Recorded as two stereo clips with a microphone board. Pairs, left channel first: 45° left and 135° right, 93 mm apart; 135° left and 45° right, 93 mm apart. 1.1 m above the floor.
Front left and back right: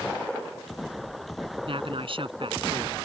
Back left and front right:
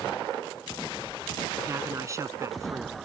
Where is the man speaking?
105° right.